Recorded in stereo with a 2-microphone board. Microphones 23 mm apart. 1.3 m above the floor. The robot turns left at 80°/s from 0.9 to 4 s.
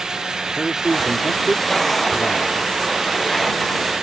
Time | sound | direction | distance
0.6 | a man speaking | 160° right | ?